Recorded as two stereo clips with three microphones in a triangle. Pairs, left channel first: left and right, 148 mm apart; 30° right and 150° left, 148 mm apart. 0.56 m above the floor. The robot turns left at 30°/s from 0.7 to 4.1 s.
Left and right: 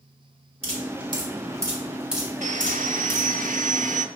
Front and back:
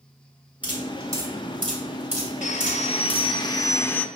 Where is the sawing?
60° right, 0.5 m; by 4.0 s 110° right, 0.5 m.